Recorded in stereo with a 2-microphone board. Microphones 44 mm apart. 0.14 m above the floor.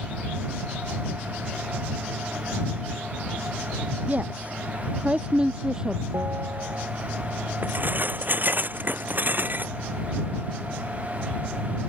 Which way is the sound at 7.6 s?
45° right (ahead or behind).